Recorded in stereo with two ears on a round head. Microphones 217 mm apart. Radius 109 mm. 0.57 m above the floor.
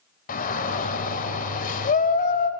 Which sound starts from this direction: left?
A shout, at 0.3 s.